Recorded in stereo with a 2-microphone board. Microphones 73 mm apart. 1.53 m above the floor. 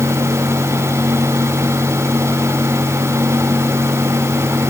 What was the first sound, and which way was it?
Only background noise.